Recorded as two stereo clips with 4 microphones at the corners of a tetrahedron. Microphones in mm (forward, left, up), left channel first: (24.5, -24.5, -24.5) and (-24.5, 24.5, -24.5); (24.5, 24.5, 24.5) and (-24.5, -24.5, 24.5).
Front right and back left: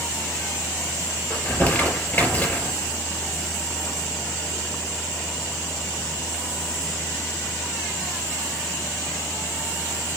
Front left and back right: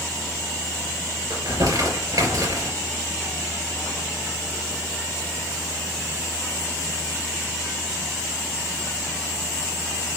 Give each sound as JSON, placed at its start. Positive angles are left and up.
{"t": 1.3, "sound": "crumpling", "azimuth_deg": -115, "distance_m": 4.0}